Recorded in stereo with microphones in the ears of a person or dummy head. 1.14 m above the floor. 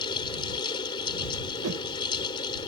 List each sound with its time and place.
0.0 s a fan: 30° left (ahead or behind)
1.6 s a whoosh: 85° right